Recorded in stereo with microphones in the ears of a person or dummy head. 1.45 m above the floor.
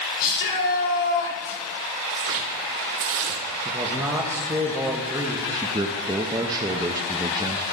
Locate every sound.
0.2 s a shout: 65° left (ahead or behind), 4 m
2.1 s tearing paper: 65° right (ahead or behind), 0.9 m
3.6 s a man speaking: 15° right (ahead or behind), 1.2 m
5.5 s a man speaking: 20° right (ahead or behind), 0.6 m